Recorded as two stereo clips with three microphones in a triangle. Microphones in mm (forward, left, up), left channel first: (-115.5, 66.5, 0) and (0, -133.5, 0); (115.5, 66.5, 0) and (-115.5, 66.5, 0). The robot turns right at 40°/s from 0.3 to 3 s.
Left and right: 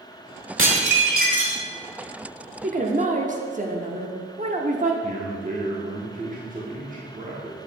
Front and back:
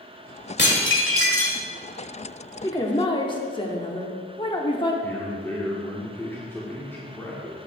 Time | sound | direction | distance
0.6 | dishes clattering | 40° right | 1.3 m
2.6 | a woman speaking | 65° right | 0.9 m
5.0 | a man speaking | 75° right | 1.0 m